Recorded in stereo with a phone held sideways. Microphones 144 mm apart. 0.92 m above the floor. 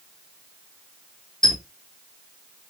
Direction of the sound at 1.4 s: 5° left (ahead or behind).